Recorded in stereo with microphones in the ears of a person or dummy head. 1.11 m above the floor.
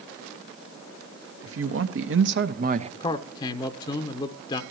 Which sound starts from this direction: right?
A man speaking, at 1.4 s.